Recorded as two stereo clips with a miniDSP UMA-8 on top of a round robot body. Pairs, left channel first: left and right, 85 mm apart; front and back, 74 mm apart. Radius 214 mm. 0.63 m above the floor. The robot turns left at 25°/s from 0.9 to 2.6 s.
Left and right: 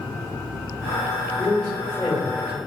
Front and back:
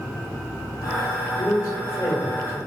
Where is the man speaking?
30° left, 1.7 m; by 2.6 s straight ahead, 1.7 m.